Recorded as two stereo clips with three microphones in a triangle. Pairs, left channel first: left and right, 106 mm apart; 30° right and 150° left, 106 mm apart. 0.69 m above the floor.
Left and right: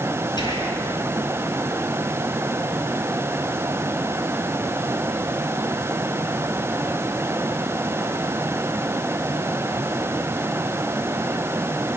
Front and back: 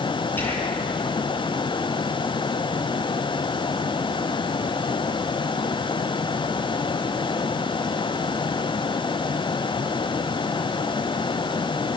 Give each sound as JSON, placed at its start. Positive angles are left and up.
{"t": 0.4, "sound": "whispering", "azimuth_deg": 40, "distance_m": 7.0}